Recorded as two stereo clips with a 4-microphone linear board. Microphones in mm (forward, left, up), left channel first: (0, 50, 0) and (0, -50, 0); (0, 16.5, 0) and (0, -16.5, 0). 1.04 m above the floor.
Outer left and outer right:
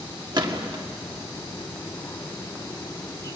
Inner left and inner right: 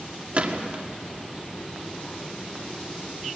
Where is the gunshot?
45° right (ahead or behind), 1.7 m.